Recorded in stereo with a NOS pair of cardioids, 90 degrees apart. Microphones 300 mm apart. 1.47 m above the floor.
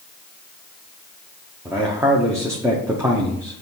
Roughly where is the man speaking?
Ahead.